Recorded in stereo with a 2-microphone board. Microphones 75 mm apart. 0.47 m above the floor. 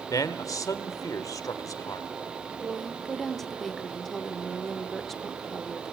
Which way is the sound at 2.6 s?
5° left (ahead or behind).